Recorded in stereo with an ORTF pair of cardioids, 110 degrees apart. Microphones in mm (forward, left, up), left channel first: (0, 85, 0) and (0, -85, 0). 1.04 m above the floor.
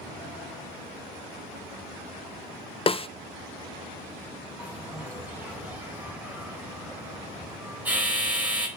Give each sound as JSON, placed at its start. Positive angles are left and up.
{"t": 2.9, "sound": "a snare drum", "azimuth_deg": 35, "distance_m": 0.5}
{"t": 4.6, "sound": "a bell", "azimuth_deg": -10, "distance_m": 5.0}